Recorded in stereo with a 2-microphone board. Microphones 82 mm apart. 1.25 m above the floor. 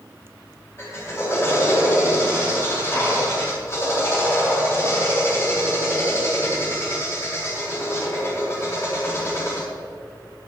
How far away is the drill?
About 5 m.